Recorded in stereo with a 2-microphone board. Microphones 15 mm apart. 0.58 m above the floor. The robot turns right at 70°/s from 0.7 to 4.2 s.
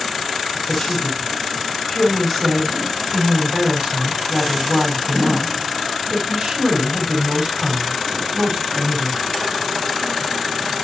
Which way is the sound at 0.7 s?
60° left.